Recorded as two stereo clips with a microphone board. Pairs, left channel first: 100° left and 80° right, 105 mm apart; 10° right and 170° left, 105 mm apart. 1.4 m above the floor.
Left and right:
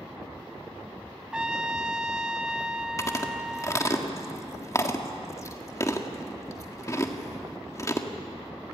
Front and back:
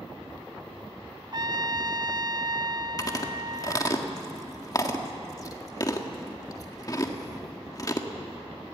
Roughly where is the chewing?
Ahead left.